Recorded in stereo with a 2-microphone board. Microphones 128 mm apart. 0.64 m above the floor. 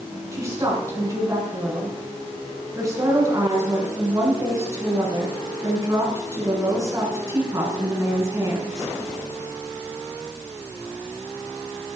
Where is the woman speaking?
25° right (ahead or behind), 7 m.